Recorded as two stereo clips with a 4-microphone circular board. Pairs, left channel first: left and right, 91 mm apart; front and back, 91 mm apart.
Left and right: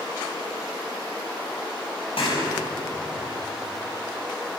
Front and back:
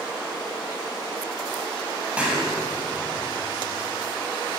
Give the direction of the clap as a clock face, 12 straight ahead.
9 o'clock.